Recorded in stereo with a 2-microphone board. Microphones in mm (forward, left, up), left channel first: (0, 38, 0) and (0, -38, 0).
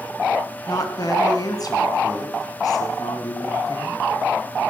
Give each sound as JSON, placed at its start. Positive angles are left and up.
{"t": 0.7, "sound": "a woman speaking", "side_deg": 55, "distance_m": 3.0}